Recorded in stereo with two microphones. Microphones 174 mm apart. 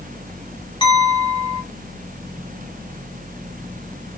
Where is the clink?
25° left (ahead or behind), 5.5 m.